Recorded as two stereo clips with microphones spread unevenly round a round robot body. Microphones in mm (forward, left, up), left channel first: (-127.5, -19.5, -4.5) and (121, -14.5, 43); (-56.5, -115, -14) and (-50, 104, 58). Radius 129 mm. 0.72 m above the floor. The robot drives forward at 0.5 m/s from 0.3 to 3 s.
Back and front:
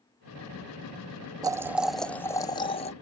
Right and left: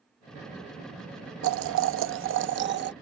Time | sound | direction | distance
1.4 | boiling | 85° left | ?